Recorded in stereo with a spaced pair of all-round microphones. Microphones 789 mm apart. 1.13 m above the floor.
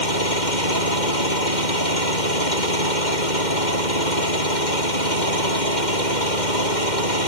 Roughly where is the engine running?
Left.